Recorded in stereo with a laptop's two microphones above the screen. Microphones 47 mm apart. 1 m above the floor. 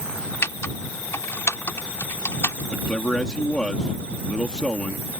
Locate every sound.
0.4 s typing on a keyboard: 75° left (ahead or behind)
2.7 s a man speaking: 15° left (ahead or behind)